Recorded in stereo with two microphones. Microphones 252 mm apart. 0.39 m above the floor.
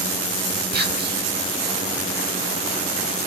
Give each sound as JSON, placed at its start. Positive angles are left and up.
{"t": 0.7, "sound": "whispering", "side_deg": -40, "distance_m": 0.9}